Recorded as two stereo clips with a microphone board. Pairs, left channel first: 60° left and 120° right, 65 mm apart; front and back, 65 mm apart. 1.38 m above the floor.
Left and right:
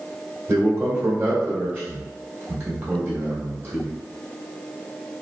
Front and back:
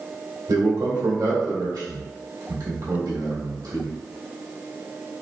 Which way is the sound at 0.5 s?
170° right.